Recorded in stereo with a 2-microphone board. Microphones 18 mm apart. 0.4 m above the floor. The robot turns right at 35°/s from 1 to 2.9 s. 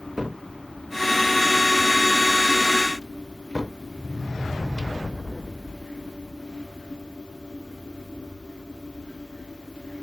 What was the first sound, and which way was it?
A cupboard door, 25° right (ahead or behind).